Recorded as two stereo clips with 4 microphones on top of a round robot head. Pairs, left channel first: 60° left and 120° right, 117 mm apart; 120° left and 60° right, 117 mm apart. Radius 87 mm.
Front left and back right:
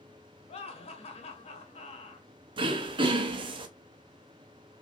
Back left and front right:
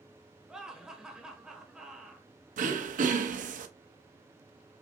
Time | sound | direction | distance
0.5 | laughter | 25° left | 1.1 m
2.6 | throat clearing | 70° right | 0.6 m